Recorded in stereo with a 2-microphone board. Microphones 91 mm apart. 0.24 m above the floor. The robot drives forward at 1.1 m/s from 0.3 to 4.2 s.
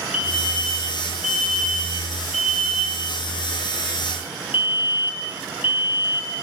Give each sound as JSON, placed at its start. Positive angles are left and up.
{"t": 0.1, "sound": "a fire alarm", "side_deg": -10, "distance_m": 8.0}